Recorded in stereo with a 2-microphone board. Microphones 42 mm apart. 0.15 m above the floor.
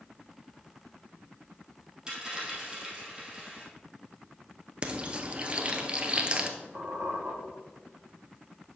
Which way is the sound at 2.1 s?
15° right (ahead or behind).